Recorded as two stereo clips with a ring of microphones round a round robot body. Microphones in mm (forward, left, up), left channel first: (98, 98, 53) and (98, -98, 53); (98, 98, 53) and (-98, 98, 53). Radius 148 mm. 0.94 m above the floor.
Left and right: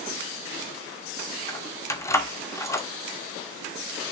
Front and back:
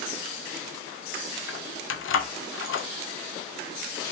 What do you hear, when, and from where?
1.5 s keys jangling: 15° left, 1.2 m